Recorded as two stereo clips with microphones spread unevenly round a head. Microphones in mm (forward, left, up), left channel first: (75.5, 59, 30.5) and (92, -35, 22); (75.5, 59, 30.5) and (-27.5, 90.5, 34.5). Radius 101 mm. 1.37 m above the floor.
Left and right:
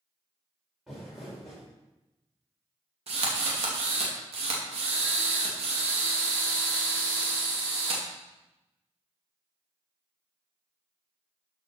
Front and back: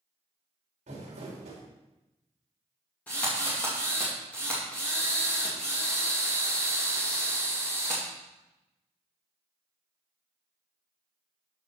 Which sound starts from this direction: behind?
Crumpling, at 0.9 s.